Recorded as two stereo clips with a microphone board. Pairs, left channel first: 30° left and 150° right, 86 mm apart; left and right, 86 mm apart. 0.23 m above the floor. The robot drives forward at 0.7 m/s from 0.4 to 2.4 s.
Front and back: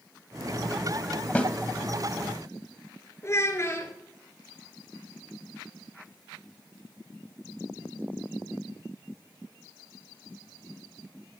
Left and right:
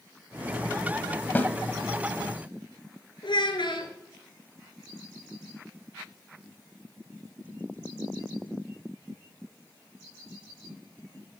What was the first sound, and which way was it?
A snare drum, 75° left.